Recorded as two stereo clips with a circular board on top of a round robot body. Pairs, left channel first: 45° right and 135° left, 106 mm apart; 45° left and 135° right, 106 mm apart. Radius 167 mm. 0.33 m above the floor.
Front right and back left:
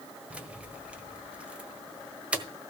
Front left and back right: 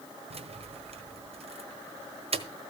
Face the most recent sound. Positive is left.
turn(degrees=-145)